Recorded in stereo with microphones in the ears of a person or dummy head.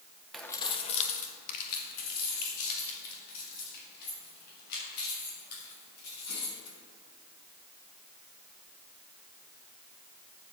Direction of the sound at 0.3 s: Centre (ahead or behind).